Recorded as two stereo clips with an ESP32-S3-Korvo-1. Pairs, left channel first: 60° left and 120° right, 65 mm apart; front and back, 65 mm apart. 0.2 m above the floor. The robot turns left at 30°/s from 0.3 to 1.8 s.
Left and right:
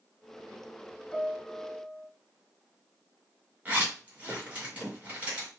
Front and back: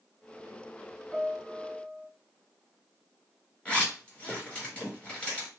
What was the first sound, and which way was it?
A piano, 45° left.